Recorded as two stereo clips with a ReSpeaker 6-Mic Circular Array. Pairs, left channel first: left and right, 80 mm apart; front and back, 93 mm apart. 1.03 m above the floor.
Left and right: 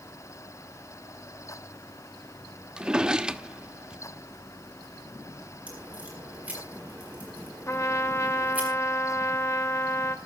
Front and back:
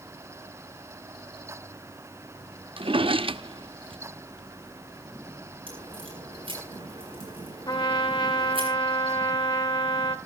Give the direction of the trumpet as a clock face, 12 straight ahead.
11 o'clock.